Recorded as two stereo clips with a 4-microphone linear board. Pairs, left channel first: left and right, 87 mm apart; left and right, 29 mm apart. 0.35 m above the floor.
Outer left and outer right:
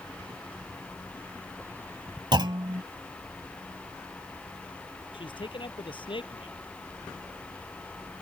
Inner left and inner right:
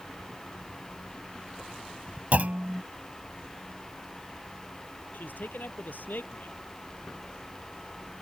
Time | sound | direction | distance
2.3 | a clunk | 60° right (ahead or behind) | ?
5.1 | a man speaking | 75° left (ahead or behind) | ?